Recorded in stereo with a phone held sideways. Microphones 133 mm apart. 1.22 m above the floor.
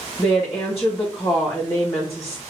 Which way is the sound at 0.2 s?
20° left (ahead or behind).